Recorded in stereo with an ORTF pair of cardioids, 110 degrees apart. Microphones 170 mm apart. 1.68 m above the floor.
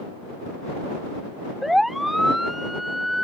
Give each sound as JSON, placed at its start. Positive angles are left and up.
{"t": 1.6, "sound": "a siren", "azimuth_deg": 0}